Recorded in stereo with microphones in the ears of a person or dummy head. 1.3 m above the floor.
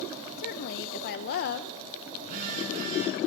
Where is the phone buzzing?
40° right (ahead or behind), 8.5 m.